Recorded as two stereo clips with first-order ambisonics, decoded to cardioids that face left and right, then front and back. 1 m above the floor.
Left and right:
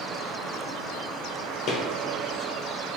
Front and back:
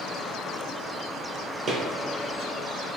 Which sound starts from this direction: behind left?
Footsteps, at 1.7 s.